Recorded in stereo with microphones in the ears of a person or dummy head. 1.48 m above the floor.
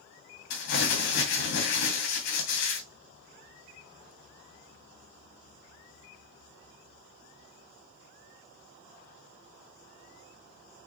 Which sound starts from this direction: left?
Crumpling, at 0.5 s.